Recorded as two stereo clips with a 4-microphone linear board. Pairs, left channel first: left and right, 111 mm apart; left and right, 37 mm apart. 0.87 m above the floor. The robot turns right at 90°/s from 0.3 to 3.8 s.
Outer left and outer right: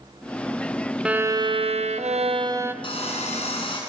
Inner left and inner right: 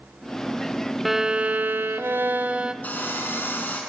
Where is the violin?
170° right, 0.6 m; by 2.7 s 20° right, 0.6 m.